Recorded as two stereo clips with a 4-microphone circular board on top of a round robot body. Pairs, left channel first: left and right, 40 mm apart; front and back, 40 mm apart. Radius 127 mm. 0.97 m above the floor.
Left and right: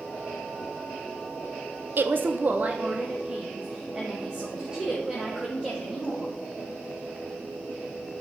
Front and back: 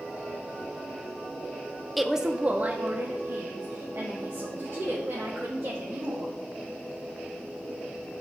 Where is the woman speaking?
90° right, 0.7 m; by 6.3 s 165° right, 3.5 m.